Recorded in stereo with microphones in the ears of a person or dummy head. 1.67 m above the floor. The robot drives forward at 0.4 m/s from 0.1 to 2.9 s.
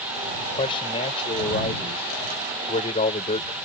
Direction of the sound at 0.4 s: 25° left (ahead or behind).